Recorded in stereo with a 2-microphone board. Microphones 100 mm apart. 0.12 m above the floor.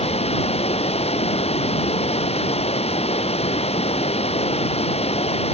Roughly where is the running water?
Left.